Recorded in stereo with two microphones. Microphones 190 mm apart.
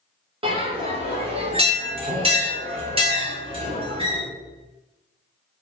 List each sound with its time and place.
0.4 s a bell: 30° right (ahead or behind), 0.6 m